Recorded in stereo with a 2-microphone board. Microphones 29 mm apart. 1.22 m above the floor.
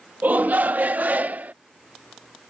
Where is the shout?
75° right (ahead or behind); by 1.5 s 70° right (ahead or behind).